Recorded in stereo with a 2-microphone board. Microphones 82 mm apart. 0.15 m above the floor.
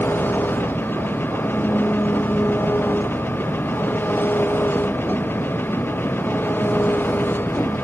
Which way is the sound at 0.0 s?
25° left (ahead or behind).